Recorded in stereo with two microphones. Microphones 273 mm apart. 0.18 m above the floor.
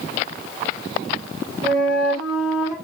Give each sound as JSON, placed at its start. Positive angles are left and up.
{"t": 1.6, "sound": "a flute", "side_deg": -10, "distance_m": 3.5}